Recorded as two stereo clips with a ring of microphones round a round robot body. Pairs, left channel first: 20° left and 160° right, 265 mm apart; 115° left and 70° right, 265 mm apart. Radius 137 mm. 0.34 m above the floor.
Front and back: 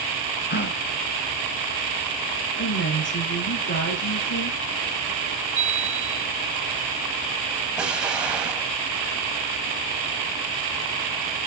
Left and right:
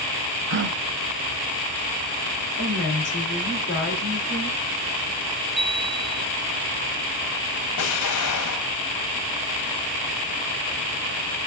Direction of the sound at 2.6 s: 65° left.